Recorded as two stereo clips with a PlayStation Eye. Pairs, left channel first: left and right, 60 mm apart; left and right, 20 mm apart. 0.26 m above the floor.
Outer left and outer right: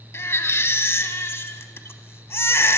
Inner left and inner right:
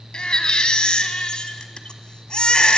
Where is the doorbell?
No doorbell in this recording.